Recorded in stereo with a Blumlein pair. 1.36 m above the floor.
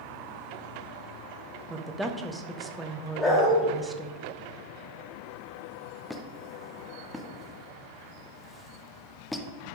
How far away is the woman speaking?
About 1.2 m.